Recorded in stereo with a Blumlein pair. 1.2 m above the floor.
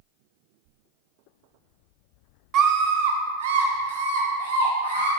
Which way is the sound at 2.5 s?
35° right.